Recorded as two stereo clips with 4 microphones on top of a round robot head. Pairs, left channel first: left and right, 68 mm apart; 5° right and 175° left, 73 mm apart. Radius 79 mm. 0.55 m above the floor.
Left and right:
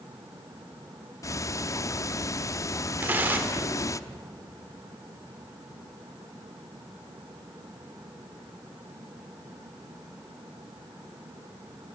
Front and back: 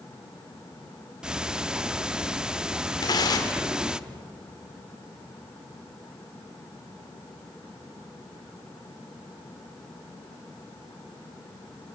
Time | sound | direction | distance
1.2 | ticking | 95° left | 0.8 m
3.0 | tearing paper | 25° right | 2 m